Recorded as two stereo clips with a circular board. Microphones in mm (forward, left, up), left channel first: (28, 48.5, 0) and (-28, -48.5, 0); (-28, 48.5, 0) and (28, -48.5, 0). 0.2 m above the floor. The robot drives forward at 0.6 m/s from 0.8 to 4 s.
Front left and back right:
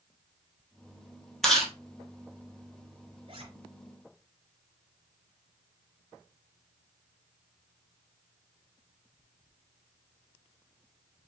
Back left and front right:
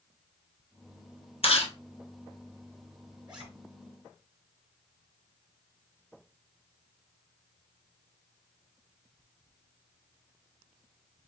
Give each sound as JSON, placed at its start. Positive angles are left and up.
{"t": 1.4, "sound": "chewing", "azimuth_deg": 150, "distance_m": 1.3}
{"t": 3.3, "sound": "a zipper", "azimuth_deg": -140, "distance_m": 2.5}